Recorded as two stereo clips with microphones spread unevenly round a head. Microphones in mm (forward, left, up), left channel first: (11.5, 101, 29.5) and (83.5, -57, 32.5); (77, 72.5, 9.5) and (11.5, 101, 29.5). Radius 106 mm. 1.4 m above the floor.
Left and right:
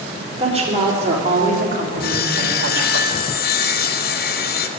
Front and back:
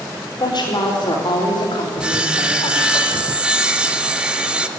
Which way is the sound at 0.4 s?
10° right.